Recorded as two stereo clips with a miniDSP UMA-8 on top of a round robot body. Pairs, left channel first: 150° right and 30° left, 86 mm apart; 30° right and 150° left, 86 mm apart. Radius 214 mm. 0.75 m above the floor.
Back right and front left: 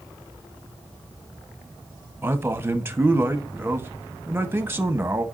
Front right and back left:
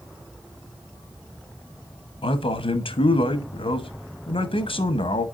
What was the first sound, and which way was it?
A man speaking, 35° right.